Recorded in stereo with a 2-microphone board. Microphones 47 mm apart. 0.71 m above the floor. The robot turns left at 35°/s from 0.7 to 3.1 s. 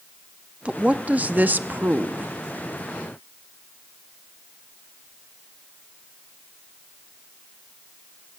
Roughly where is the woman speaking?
Ahead right.